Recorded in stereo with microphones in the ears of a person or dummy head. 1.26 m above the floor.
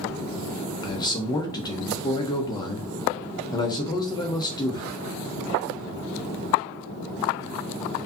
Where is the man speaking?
25° left (ahead or behind), 0.8 m.